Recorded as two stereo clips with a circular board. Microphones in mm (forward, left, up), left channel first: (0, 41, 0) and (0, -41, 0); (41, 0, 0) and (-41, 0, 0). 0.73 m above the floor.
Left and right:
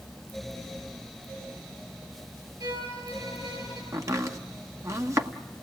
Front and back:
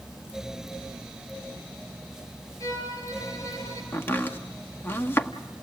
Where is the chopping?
55° right, 1.2 m.